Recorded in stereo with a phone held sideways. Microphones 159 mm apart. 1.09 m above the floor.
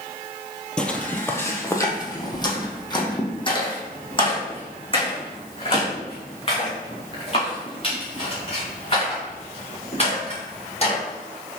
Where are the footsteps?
5° left (ahead or behind), 1.3 m; by 11.0 s 40° left (ahead or behind), 6.5 m.